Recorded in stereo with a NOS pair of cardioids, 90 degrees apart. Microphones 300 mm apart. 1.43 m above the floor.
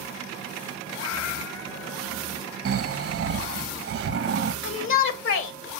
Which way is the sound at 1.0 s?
70° left.